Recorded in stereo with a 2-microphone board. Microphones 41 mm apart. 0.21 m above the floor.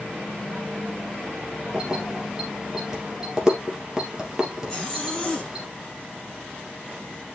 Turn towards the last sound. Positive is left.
turn(degrees=10)  # may be behind; listen again after turning